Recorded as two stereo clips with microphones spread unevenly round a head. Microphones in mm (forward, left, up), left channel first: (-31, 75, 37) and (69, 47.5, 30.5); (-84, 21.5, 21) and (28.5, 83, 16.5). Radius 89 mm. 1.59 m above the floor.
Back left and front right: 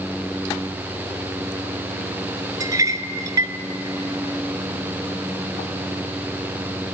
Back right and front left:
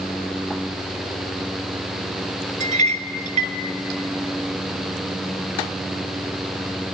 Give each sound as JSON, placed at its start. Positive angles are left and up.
{"t": 2.6, "sound": "a clink", "azimuth_deg": 35, "distance_m": 1.2}